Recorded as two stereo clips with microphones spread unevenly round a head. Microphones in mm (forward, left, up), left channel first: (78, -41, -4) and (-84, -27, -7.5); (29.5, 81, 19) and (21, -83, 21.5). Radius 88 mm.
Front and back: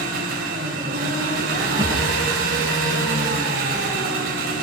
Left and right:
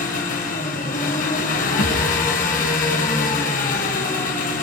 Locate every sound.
0.0 s an engine running: 135° left, 4.5 m
1.8 s a thud: 100° left, 7.5 m